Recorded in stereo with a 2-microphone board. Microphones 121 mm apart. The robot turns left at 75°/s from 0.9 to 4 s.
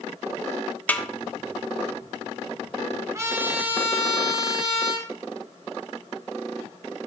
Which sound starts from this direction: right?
A trumpet, at 3.1 s.